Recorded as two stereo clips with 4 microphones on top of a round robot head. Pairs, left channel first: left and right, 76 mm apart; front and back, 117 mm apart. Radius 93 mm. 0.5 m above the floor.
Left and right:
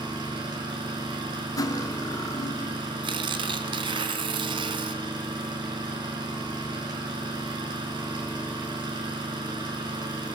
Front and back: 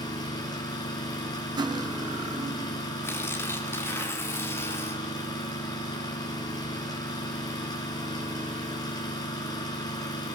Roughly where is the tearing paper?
Right.